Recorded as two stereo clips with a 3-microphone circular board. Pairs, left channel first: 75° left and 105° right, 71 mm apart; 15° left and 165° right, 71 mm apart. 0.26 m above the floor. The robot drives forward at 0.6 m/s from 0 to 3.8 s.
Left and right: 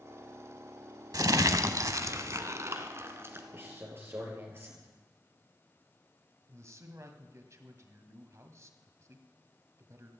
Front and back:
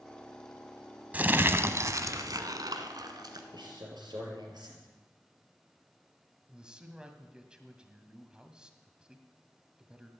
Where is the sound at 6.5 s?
95° right, 1.7 m.